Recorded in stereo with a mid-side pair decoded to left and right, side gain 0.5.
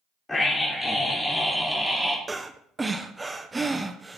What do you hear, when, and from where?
0.3 s a scream: 15° left, 4.5 m; by 2.2 s 5° right, 3.5 m
2.3 s breathing: 20° right, 1.2 m